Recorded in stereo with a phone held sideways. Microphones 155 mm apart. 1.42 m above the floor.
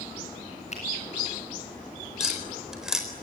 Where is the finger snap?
50° left (ahead or behind), 7 m.